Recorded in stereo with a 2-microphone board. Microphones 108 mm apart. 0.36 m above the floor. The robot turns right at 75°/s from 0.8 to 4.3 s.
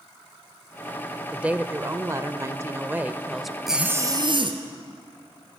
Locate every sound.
1.3 s a woman speaking: 10° right (ahead or behind), 0.9 m; by 3.6 s centre (ahead or behind), 0.9 m
3.7 s a zipper: straight behind, 2 m; by 4.6 s 130° right, 2 m